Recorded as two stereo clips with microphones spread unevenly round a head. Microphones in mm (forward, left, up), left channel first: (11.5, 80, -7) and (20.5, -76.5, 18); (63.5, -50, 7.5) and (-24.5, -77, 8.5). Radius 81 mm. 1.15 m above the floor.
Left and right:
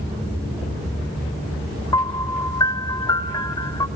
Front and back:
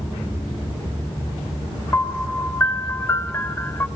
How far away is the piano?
About 0.9 m.